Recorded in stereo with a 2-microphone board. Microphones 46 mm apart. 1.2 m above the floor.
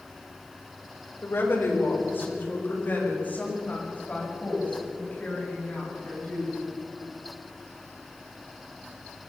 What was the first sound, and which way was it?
A woman speaking, 60° left (ahead or behind).